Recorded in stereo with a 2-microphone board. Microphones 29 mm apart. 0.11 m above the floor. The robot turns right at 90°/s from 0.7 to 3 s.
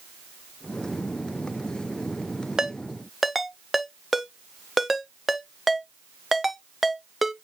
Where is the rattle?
No rattle in this recording.